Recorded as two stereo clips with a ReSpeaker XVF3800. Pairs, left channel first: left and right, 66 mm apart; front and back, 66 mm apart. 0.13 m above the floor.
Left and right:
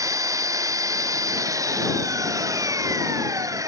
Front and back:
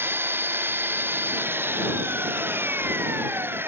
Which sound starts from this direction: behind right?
An engine running, at 0.0 s.